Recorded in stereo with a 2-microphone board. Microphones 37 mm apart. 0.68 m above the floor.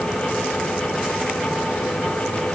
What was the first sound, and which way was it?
Only background noise.